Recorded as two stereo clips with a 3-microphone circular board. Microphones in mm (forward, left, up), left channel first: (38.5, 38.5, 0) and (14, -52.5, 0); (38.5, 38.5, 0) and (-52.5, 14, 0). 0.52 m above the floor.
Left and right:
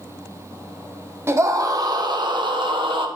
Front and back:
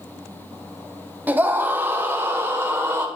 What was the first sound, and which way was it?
A scream, 115° right.